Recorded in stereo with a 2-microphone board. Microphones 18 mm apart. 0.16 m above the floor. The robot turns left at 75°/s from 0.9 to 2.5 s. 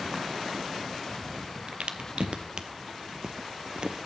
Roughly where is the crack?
Right.